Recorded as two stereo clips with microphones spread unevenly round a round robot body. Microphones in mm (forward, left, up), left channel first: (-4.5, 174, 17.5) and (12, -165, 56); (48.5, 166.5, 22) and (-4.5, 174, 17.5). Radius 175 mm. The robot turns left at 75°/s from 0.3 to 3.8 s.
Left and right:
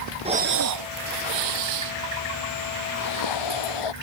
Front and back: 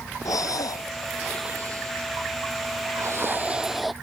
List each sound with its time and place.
0.2 s breathing: 15° right; by 3.9 s 85° left